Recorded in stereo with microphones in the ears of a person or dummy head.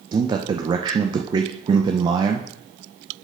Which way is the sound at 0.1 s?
30° right (ahead or behind).